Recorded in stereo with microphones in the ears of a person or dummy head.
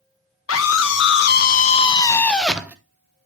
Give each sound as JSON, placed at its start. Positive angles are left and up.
{"t": 0.5, "sound": "a scream", "side_deg": 75, "distance_m": 1.3}